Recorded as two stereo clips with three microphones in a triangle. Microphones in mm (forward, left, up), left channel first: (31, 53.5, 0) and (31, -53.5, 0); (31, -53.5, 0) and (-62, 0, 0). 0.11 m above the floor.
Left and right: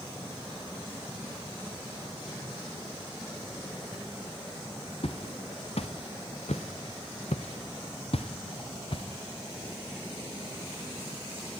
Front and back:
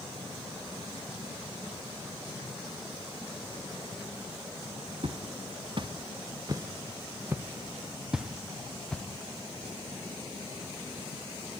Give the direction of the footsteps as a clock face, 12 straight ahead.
8 o'clock.